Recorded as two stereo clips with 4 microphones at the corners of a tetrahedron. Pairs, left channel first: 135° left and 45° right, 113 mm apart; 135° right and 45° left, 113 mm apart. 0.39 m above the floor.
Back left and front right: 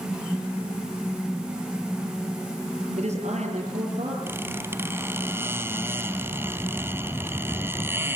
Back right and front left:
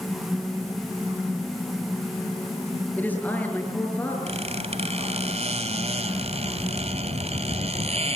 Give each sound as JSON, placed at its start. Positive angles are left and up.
{"t": 3.0, "sound": "a man speaking", "azimuth_deg": -60, "distance_m": 7.0}
{"t": 4.3, "sound": "a squeak", "azimuth_deg": 25, "distance_m": 1.7}